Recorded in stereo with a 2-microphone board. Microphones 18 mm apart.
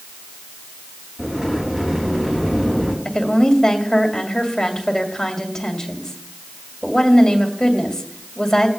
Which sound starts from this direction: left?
A woman speaking, at 3.0 s.